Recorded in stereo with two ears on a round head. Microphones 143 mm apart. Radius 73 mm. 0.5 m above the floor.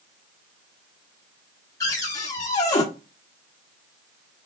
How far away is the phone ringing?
No phone ringing in this recording.